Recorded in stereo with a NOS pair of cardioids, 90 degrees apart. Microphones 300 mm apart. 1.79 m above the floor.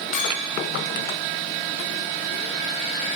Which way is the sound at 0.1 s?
40° left.